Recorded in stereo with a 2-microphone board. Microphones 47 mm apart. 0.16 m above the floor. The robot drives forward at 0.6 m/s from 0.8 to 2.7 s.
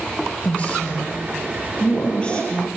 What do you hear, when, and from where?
0.4 s a woman speaking: 30° left (ahead or behind), 3.5 m; by 2.7 s 20° left (ahead or behind), 4.5 m